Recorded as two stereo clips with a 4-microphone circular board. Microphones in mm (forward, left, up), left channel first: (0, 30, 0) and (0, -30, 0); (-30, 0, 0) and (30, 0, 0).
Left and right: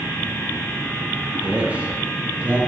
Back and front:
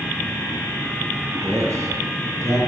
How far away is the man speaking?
About 3 m.